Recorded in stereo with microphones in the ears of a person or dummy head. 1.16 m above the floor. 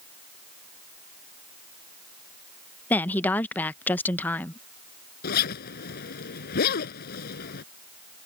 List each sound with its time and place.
2.9 s a woman speaking: 5° left (ahead or behind)
5.2 s a zipper: 50° left (ahead or behind)